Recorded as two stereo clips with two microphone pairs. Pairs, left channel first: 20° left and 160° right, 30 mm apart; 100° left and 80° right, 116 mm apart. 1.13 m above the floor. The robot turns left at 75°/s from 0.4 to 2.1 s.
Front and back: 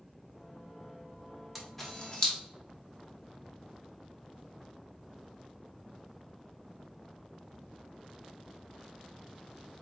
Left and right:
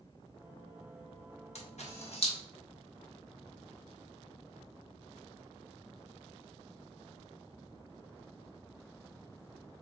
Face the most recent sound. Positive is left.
turn(degrees=75)